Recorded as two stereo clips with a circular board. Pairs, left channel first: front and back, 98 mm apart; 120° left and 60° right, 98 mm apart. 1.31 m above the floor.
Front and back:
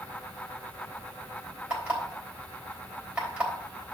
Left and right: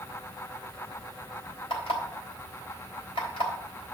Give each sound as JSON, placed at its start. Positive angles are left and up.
{"t": 1.7, "sound": "an alarm clock", "azimuth_deg": 105, "distance_m": 3.5}